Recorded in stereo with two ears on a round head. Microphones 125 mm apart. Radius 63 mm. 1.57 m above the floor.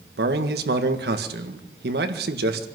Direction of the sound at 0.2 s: 80° right.